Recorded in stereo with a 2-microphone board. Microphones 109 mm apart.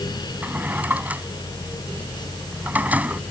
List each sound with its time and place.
0.4 s a drawer: 15° right (ahead or behind)